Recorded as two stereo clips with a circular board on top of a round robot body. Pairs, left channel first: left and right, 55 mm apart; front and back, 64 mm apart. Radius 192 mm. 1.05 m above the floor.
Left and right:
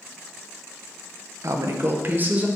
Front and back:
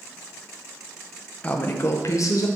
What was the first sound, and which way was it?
A woman speaking, 70° right.